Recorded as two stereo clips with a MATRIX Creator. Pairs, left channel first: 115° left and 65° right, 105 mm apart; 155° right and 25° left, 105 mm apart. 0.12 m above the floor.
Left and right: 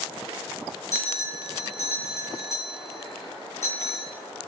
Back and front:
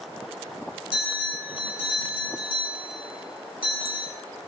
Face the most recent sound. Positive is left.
turn(degrees=175)